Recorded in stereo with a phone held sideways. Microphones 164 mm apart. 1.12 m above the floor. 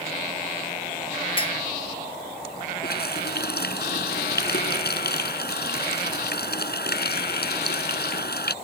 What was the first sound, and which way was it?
A clink, 30° left (ahead or behind).